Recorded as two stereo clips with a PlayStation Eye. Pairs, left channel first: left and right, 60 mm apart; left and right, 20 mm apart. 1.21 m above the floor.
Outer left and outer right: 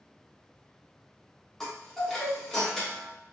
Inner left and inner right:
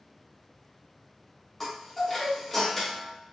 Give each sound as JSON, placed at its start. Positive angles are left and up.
{"t": 1.6, "sound": "a chime", "side_deg": 5, "distance_m": 0.9}